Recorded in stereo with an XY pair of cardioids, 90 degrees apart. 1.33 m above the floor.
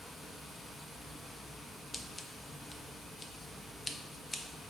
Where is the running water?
30° left, 1.3 m.